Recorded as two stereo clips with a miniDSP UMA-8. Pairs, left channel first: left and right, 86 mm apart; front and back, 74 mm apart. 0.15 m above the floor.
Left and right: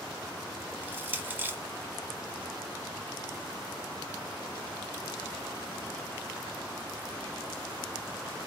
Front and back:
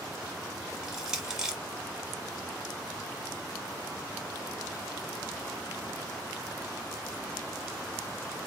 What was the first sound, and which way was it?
Crushing, 110° right.